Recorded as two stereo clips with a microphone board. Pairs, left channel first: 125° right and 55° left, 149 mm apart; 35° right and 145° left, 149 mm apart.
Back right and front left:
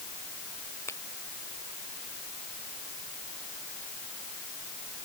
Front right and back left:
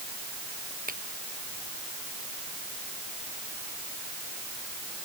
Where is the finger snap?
165° left.